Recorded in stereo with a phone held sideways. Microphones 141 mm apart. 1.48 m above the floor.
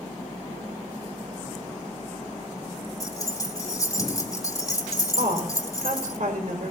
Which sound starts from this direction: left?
Keys jangling, at 3.0 s.